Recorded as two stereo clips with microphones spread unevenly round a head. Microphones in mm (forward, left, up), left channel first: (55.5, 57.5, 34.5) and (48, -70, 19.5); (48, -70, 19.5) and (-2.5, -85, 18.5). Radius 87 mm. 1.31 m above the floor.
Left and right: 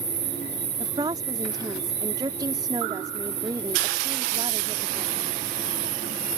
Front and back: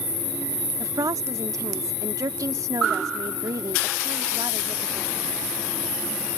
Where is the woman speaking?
165° right.